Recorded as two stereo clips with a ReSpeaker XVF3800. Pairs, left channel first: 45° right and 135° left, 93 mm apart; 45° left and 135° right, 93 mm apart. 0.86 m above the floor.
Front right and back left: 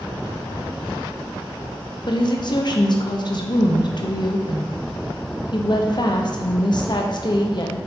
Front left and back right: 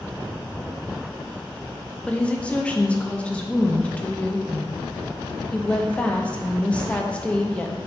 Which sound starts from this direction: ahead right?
A woman speaking, at 2.1 s.